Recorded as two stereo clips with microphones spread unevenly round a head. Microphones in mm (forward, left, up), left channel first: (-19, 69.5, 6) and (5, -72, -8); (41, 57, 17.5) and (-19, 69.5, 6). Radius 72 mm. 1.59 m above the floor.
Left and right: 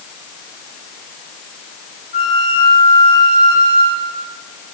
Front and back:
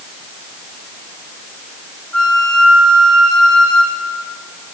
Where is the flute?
65° left, 2 m.